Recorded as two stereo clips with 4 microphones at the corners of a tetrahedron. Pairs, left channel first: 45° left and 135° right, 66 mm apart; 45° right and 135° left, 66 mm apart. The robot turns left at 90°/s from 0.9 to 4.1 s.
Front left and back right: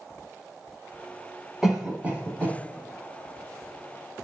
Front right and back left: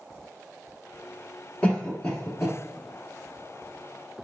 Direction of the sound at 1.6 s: 65° right.